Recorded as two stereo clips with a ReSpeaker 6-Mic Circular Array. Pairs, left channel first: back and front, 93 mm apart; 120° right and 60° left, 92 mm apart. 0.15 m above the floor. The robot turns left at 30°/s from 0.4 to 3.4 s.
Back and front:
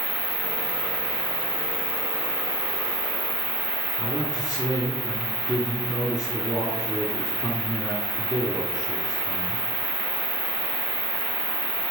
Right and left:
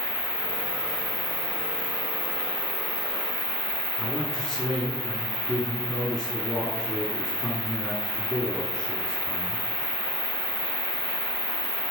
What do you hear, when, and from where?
0.0 s an insect: 135° right, 2.5 m; by 11.9 s 135° left, 2.5 m
4.0 s a man speaking: 160° left, 1.5 m